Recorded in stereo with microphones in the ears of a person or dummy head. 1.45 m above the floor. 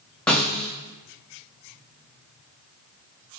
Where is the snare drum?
5° left (ahead or behind), 0.8 m.